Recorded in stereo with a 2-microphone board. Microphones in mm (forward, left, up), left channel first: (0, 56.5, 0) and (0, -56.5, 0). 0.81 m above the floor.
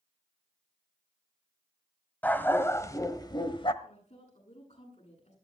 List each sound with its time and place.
2.2 s a dog barking: 15° left (ahead or behind), 1.4 m; by 3.7 s 50° left (ahead or behind), 1.3 m
3.8 s a woman speaking: 80° left, 9.5 m